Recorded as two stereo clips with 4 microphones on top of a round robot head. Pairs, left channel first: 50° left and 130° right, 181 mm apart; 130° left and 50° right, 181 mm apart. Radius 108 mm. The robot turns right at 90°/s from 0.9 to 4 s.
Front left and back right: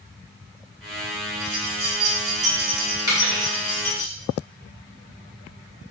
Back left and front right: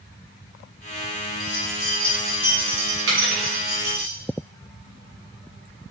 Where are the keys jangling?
135° left, 1.3 m; by 4.1 s 10° left, 1.3 m.